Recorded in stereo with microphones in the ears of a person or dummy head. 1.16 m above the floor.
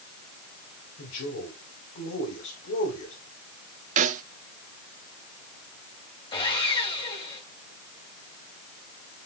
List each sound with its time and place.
1.0 s a man speaking: 65° left (ahead or behind), 4.5 m
4.0 s a snare drum: 40° right (ahead or behind), 0.7 m
6.3 s sawing: 25° left (ahead or behind), 3.5 m